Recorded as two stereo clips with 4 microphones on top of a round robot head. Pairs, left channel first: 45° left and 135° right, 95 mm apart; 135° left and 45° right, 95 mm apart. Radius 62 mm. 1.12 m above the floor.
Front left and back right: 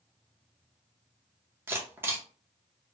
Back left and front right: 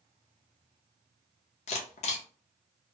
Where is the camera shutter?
155° left, 0.7 m.